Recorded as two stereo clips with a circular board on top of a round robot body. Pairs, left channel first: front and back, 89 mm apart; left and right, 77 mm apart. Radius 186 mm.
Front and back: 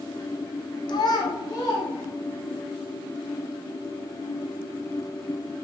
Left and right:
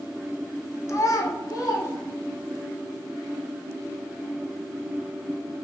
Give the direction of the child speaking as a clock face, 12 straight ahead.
11 o'clock.